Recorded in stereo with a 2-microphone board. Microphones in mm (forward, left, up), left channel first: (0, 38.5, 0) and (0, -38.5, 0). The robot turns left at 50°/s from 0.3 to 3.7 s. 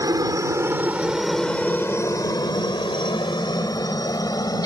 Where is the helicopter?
50° right (ahead or behind); by 4.7 s 55° left (ahead or behind).